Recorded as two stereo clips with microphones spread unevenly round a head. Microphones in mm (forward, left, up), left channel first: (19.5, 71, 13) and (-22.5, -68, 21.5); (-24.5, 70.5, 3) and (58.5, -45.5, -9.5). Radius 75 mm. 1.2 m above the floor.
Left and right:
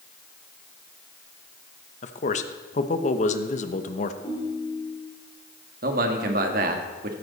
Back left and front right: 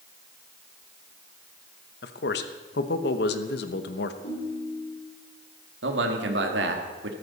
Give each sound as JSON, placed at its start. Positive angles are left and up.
{"t": 2.0, "sound": "a man speaking", "azimuth_deg": 115, "distance_m": 1.0}
{"t": 4.2, "sound": "a ringtone", "azimuth_deg": 140, "distance_m": 5.5}
{"t": 5.8, "sound": "a man speaking", "azimuth_deg": -75, "distance_m": 1.8}